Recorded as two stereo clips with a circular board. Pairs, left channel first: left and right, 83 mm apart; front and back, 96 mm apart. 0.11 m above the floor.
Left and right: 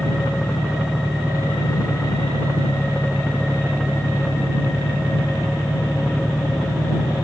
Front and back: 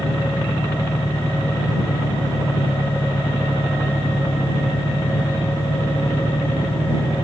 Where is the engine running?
5° right.